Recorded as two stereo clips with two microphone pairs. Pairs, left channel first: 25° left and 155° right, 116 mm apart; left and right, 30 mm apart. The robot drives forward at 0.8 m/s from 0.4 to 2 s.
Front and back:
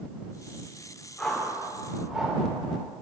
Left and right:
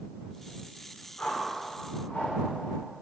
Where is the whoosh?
110° left, 2.5 m; by 2.4 s 125° left, 2.5 m.